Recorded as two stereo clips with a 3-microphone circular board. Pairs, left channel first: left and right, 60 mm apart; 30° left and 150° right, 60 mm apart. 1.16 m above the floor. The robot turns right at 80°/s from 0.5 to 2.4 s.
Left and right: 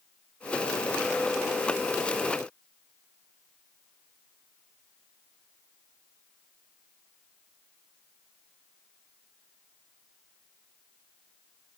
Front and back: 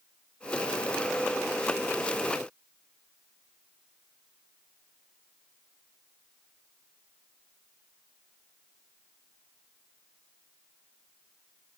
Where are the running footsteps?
No running footsteps in this recording.